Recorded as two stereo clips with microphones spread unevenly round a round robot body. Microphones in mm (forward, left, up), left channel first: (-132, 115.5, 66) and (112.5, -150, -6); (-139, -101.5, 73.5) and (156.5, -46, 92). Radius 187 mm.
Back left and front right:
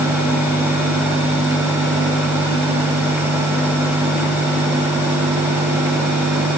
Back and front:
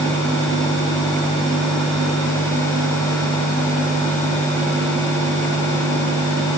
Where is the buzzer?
No buzzer in this recording.